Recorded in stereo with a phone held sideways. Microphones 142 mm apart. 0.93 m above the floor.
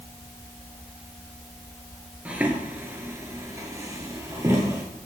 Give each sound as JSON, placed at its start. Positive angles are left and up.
{"t": 2.2, "sound": "footsteps", "side_deg": -10, "distance_m": 1.0}